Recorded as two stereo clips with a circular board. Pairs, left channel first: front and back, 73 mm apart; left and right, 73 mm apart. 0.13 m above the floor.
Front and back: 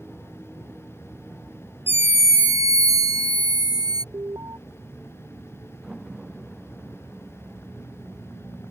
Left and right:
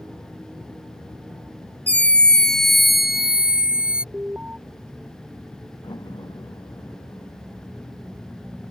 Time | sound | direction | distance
1.9 | a scream | 145° left | ?
4.1 | an alarm | 160° right | ?
5.8 | a door slam | 95° left | ?